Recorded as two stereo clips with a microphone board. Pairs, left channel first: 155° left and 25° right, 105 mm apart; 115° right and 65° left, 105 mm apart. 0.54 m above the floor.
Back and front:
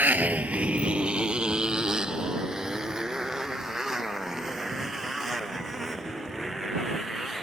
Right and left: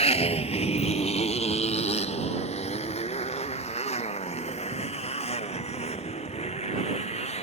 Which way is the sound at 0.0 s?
95° right.